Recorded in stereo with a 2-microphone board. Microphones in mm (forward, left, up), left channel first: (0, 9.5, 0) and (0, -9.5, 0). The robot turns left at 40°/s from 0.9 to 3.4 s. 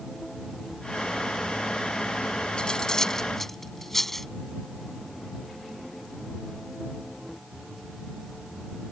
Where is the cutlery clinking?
55° left (ahead or behind); by 4.3 s 20° left (ahead or behind).